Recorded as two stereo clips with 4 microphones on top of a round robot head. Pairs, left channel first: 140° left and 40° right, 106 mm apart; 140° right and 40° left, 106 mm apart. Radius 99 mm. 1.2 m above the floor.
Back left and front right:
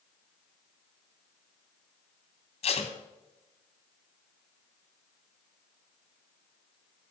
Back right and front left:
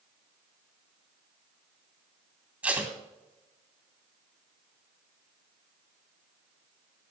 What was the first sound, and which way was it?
Tape being pulled, 115° left.